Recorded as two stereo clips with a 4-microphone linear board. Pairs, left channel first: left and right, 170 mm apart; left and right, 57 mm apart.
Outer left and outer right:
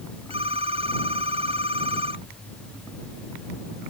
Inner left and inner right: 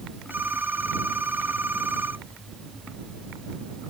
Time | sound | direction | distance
0.3 | a phone ringing | 35° right (ahead or behind) | ?